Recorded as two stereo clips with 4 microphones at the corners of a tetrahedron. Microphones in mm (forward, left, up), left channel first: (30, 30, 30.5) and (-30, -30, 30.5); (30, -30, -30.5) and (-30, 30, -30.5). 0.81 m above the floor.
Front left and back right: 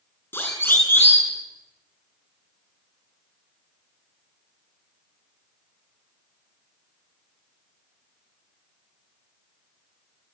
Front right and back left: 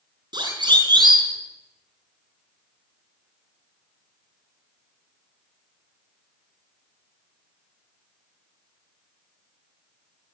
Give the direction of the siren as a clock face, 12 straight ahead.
8 o'clock.